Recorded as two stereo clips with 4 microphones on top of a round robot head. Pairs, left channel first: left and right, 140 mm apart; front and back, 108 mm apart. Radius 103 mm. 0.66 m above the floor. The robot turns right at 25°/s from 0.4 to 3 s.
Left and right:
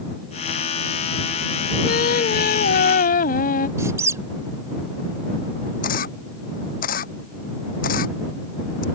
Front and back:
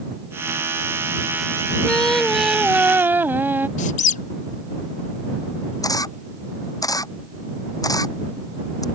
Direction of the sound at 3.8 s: 15° right.